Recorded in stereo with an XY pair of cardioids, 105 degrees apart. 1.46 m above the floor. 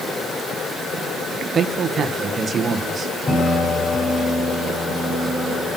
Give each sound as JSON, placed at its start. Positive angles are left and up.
{"t": 1.5, "sound": "a man speaking", "azimuth_deg": -45, "distance_m": 1.6}
{"t": 3.3, "sound": "a piano", "azimuth_deg": 40, "distance_m": 6.5}